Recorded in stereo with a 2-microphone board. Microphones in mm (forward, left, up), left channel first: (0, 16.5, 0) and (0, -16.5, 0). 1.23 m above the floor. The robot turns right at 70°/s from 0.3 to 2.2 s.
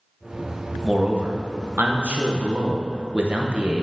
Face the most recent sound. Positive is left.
turn(degrees=-55)